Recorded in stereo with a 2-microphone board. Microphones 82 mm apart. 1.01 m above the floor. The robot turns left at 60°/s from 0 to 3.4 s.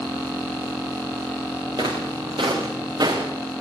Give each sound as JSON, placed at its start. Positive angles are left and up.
{"t": 1.8, "sound": "footsteps", "side_deg": -60, "distance_m": 5.5}